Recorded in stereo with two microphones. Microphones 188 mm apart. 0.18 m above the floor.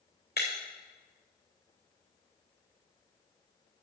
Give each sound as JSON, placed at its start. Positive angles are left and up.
{"t": 0.4, "sound": "breaking glass", "side_deg": 65, "distance_m": 3.5}